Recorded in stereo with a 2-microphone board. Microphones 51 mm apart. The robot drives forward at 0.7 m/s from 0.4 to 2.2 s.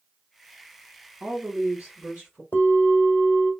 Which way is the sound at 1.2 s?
30° right (ahead or behind).